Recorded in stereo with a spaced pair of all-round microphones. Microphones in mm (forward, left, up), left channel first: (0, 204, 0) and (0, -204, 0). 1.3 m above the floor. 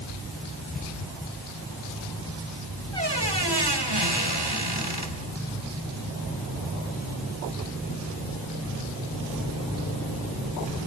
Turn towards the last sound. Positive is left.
turn(degrees=-75)  # may be behind; listen again after turning